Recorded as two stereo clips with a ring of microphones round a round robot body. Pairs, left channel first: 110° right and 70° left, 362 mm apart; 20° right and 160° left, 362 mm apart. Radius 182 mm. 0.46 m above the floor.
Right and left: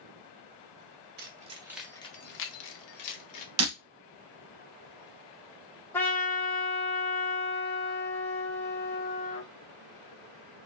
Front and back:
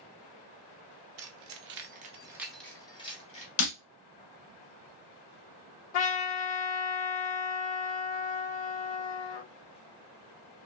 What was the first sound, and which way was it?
Keys jangling, 125° left.